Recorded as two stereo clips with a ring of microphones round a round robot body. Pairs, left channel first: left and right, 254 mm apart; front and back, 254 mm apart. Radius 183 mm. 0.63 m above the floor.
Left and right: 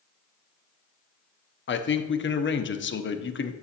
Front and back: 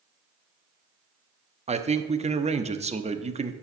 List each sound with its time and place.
1.7 s a man speaking: 120° left, 0.9 m